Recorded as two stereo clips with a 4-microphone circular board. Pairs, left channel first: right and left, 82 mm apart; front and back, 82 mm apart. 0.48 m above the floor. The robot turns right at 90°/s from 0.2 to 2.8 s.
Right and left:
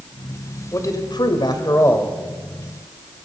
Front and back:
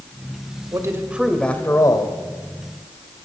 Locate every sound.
0.7 s a man speaking: 140° right, 1.7 m; by 2.2 s 10° right, 1.7 m